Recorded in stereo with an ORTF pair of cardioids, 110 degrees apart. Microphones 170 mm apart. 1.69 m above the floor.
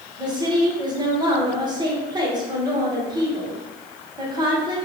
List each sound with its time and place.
0.2 s a woman speaking: 25° right, 1.4 m